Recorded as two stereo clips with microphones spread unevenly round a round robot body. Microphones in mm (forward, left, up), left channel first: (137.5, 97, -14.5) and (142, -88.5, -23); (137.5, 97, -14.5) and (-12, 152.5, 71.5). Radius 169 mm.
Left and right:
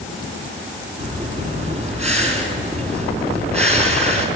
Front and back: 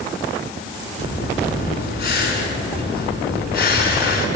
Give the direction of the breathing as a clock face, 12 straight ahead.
1 o'clock.